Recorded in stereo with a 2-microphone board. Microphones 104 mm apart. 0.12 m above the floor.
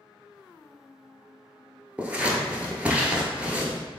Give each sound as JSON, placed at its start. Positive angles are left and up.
{"t": 2.0, "sound": "scissors", "side_deg": -10, "distance_m": 0.9}